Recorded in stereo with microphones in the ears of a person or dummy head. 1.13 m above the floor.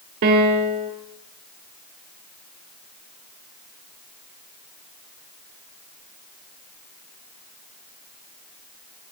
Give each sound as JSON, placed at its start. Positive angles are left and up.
{"t": 0.2, "sound": "a piano", "side_deg": -25, "distance_m": 0.6}